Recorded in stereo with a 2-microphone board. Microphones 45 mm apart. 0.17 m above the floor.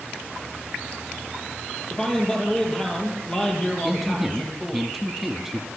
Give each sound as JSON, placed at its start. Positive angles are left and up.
{"t": 1.9, "sound": "a man speaking", "side_deg": 20, "distance_m": 5.5}
{"t": 3.8, "sound": "a man speaking", "side_deg": 0, "distance_m": 1.0}